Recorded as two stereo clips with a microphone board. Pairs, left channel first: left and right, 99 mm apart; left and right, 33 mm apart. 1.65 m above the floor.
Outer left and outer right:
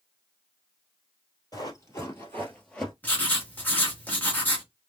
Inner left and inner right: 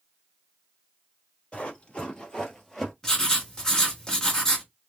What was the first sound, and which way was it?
Running footsteps, 35° left (ahead or behind).